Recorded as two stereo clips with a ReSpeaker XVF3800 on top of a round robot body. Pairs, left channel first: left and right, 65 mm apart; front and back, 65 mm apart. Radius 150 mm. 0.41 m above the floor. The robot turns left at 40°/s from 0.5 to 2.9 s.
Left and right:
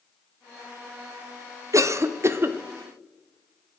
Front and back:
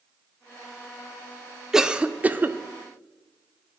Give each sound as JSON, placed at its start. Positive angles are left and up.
{"t": 1.7, "sound": "a cough", "azimuth_deg": -100, "distance_m": 1.2}